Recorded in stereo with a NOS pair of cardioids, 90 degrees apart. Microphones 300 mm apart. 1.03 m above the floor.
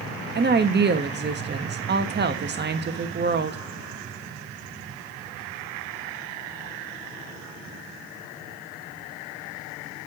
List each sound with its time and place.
0.3 s a woman speaking: 35° right, 1.3 m